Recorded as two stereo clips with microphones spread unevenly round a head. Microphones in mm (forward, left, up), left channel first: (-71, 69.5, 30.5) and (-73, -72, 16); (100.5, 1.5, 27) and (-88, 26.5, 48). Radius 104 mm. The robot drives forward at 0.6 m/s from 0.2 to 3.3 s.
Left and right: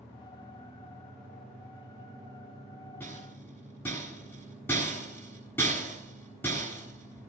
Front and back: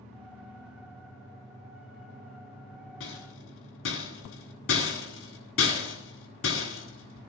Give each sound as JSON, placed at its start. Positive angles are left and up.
{"t": 3.0, "sound": "a rattle", "azimuth_deg": 10, "distance_m": 8.5}